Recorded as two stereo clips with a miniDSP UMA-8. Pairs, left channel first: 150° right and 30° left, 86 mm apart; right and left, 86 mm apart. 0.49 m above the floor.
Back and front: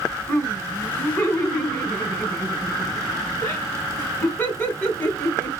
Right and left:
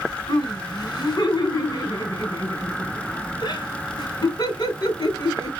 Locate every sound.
0.3 s laughter: 95° right, 2 m